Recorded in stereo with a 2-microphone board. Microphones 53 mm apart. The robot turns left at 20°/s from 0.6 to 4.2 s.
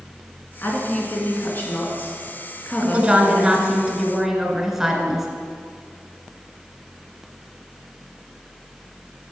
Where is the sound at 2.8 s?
20° right (ahead or behind), 1.1 m; by 5.3 s 5° right (ahead or behind), 1.1 m.